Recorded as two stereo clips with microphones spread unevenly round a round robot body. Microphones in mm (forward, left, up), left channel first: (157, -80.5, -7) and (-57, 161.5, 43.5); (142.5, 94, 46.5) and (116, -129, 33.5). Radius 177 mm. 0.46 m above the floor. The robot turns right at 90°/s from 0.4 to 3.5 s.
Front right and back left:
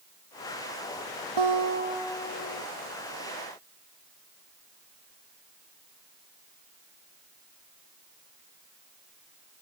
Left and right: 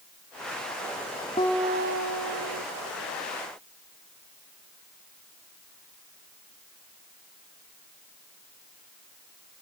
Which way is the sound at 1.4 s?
160° left.